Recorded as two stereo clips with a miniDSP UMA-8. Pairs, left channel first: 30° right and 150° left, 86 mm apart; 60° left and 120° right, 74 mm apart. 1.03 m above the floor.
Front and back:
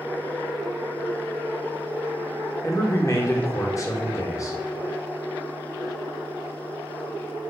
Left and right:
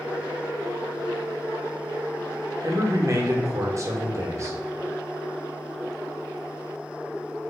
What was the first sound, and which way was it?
A man speaking, 80° right.